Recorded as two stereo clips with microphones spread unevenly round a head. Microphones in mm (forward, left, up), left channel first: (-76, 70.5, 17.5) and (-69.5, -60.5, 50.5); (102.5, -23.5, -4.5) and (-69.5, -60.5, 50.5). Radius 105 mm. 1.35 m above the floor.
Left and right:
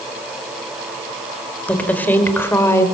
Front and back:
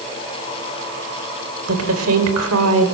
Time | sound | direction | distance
1.7 | a woman speaking | 175° left | 5 m